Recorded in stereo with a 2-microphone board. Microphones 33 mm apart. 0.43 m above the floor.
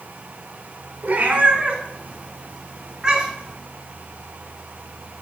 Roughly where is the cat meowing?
Right.